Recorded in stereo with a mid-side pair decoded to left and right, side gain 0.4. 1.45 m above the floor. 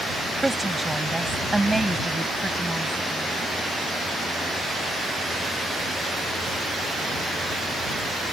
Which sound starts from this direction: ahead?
A woman speaking, at 0.4 s.